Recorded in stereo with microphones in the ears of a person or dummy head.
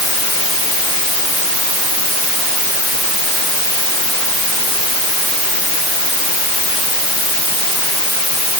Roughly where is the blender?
I don't hear a blender.